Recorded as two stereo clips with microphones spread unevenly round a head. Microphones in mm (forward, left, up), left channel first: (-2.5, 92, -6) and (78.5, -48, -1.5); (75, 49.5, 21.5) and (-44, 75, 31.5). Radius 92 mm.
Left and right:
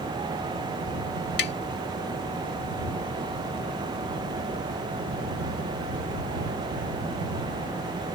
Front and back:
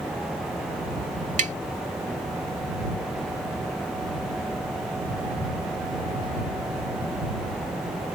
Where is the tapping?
155° left.